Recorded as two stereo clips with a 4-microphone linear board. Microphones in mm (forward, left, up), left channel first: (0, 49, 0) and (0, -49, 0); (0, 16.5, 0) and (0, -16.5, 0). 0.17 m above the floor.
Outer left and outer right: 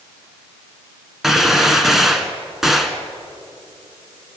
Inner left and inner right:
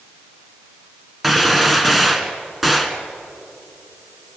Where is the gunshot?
Centre (ahead or behind), 1.6 m.